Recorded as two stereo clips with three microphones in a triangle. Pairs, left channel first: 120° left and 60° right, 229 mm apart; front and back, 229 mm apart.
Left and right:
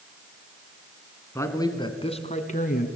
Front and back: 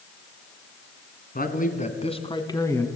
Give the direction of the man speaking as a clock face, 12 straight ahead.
11 o'clock.